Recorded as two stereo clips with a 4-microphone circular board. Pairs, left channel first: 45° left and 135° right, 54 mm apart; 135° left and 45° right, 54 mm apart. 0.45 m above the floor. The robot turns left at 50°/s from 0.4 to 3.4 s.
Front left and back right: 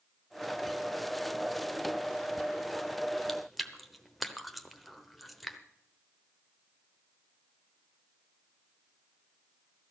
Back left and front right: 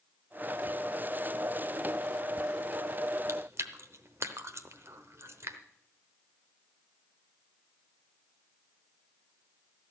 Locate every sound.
3.3 s chewing: 40° right, 0.9 m; by 5.6 s 45° right, 0.9 m